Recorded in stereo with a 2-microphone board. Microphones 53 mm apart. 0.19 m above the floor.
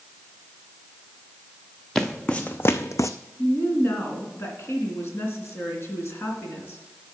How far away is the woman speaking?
About 2.5 m.